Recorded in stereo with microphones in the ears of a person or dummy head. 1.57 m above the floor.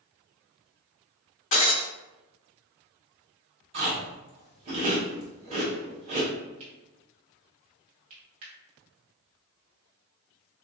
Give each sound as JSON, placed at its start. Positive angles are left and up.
{"t": 1.5, "sound": "breaking glass", "side_deg": 30, "distance_m": 1.1}
{"t": 3.7, "sound": "chewing", "side_deg": -35, "distance_m": 1.3}
{"t": 6.6, "sound": "cutlery clinking", "side_deg": -40, "distance_m": 1.4}